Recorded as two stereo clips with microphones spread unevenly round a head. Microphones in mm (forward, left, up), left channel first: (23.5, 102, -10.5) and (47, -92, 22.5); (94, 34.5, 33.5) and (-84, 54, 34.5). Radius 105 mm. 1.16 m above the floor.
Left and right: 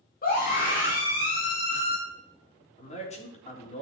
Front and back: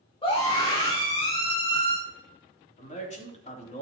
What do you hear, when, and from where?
0.2 s a scream: 55° left, 2.5 m
2.8 s a man speaking: 45° left, 3.5 m